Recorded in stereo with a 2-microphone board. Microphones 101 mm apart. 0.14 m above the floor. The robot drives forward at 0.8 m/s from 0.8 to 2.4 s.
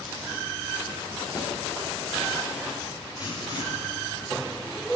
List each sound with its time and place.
1.4 s a snare drum: 45° left (ahead or behind), 2.5 m
3.2 s writing: 45° left (ahead or behind), 2.0 m